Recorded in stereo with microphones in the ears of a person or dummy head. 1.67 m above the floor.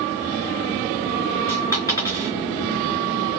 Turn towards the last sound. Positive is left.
turn(degrees=20)  # may be behind; listen again after turning